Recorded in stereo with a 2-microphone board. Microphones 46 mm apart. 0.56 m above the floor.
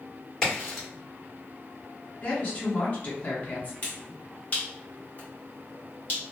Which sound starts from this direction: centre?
A crack, at 0.4 s.